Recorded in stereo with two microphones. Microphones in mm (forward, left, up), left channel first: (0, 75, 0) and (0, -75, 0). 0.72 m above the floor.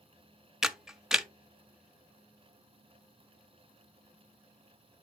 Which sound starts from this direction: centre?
A camera shutter, at 0.6 s.